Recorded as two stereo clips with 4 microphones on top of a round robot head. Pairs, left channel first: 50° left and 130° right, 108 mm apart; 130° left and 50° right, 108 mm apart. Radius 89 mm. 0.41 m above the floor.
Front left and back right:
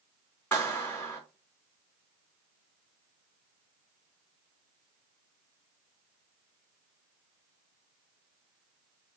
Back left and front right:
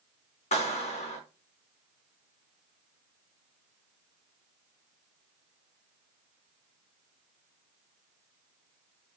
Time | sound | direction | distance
0.5 | a clap | 125° left | 4.5 m